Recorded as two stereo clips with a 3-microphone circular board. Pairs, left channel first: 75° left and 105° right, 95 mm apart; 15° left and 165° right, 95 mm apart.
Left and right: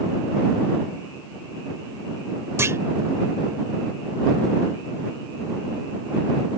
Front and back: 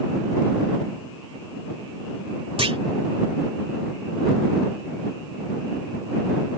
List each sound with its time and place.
2.6 s a clunk: 165° right